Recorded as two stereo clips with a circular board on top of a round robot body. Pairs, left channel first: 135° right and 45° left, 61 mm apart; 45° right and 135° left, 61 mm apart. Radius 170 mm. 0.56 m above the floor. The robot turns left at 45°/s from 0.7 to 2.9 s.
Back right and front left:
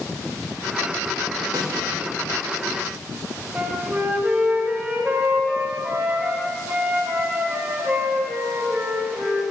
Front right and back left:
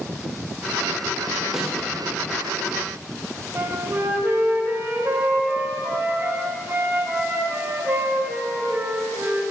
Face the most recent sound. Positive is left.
turn(degrees=100)